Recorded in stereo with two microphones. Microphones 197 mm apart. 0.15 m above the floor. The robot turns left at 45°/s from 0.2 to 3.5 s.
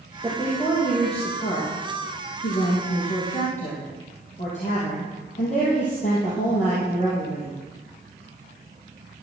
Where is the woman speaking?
175° right, 4.5 m; by 7.6 s 40° left, 4.5 m.